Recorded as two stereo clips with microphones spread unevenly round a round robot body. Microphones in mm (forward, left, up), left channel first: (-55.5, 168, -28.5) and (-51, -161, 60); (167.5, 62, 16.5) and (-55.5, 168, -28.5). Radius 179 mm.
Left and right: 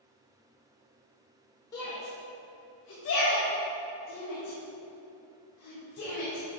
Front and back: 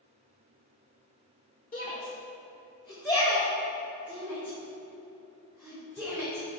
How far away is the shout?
About 1.5 m.